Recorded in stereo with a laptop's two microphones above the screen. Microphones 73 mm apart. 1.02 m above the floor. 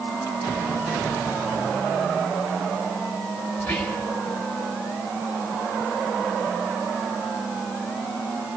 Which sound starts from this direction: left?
Whispering, at 3.6 s.